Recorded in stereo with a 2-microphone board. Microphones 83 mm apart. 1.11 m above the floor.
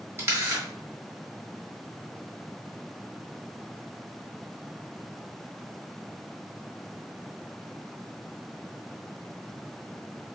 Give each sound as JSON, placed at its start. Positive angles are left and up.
{"t": 0.2, "sound": "a camera shutter", "side_deg": -35, "distance_m": 1.1}